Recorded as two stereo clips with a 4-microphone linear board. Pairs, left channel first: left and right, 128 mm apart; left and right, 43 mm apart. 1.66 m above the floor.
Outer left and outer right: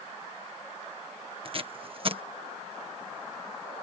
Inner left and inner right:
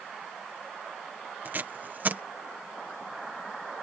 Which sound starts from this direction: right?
Tape being pulled, at 1.4 s.